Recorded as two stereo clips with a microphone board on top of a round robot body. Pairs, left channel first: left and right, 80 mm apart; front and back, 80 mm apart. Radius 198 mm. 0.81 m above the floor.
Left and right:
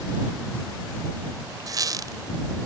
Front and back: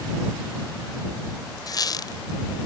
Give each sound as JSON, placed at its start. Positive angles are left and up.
{"t": 1.7, "sound": "a squeak", "azimuth_deg": -45}